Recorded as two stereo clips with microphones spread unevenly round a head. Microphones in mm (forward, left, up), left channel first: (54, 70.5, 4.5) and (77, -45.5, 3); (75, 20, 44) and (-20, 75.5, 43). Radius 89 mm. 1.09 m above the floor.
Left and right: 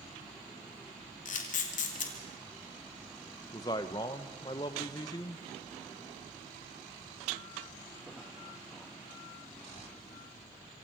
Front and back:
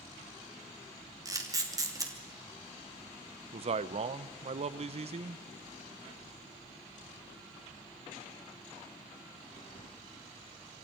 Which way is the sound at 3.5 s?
165° left.